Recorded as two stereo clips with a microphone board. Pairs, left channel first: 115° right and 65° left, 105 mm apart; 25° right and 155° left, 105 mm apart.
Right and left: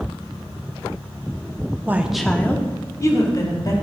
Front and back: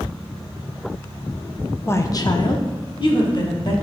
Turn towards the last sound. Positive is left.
turn(degrees=-65)